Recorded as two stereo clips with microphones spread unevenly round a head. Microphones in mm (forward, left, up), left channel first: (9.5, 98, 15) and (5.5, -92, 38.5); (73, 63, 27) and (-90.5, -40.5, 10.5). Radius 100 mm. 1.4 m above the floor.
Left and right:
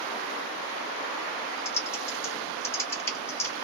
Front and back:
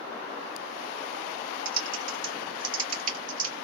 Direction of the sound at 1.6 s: 165° left.